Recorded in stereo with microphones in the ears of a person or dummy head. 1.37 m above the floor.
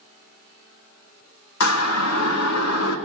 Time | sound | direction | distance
1.6 | a siren | 80° left | 2 m